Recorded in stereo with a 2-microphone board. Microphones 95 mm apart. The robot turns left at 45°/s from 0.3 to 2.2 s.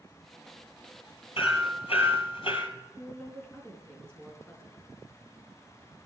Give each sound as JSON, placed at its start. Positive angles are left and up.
{"t": 1.4, "sound": "hammering", "azimuth_deg": 110, "distance_m": 1.9}
{"t": 3.0, "sound": "a woman speaking", "side_deg": 10, "distance_m": 4.0}